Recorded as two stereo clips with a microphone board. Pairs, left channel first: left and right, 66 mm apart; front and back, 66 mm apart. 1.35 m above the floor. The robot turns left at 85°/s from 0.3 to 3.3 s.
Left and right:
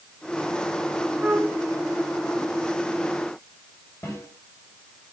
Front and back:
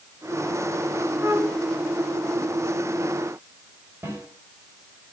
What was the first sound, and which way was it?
A flute, 125° right.